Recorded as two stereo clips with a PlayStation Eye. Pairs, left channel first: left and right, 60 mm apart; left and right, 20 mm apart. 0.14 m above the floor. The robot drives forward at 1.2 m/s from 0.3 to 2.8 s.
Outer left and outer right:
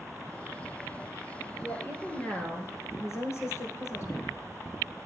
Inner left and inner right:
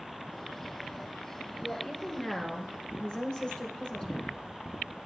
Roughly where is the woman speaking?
Left.